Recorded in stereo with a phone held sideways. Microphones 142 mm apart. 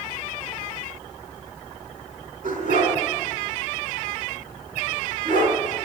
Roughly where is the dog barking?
Right.